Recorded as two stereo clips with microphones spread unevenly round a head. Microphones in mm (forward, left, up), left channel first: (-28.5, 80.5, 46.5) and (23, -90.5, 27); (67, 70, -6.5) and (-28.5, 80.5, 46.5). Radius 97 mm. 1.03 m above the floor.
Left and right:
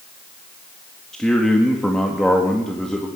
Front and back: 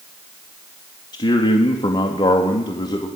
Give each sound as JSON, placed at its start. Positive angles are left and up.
{"t": 1.1, "sound": "a man speaking", "azimuth_deg": 20, "distance_m": 2.0}